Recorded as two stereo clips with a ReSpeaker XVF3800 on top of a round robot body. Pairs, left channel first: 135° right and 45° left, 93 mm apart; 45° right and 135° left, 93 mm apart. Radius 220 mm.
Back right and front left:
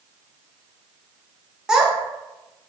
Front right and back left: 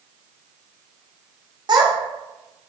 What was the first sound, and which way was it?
A child speaking, 125° left.